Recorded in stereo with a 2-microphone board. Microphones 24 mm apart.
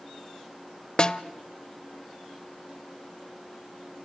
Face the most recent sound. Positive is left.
turn(degrees=35)  # may be behind; listen again after turning